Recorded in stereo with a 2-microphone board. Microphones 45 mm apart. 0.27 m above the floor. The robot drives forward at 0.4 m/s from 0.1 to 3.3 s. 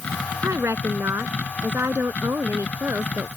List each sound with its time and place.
0.4 s a woman speaking: 70° right (ahead or behind); by 3.3 s 65° right (ahead or behind)